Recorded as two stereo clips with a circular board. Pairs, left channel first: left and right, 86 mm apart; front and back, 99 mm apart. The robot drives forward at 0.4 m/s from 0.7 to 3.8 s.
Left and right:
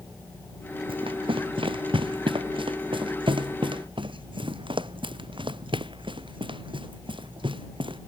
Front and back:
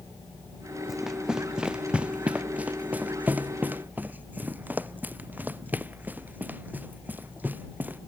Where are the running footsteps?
90° right; by 8.0 s 105° right.